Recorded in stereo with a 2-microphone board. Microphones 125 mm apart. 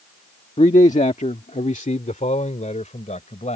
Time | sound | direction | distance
0.6 | a man speaking | 60° left (ahead or behind) | ?